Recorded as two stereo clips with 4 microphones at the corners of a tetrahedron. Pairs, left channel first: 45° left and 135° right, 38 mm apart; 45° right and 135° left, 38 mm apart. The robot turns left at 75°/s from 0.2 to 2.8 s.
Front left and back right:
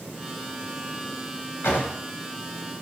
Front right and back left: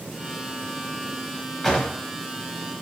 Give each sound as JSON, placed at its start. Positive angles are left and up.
{"t": 1.6, "sound": "a drawer", "azimuth_deg": 35, "distance_m": 0.6}